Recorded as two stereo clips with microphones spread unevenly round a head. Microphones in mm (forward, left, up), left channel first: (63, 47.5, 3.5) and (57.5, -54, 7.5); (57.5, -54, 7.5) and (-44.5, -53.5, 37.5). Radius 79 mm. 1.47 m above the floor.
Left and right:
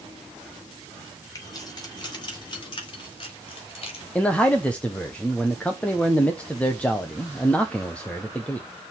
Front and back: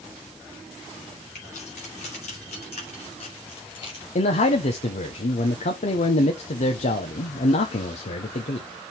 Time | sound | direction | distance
1.4 | keys jangling | 35° left | 3 m
4.2 | a man speaking | 10° left | 0.9 m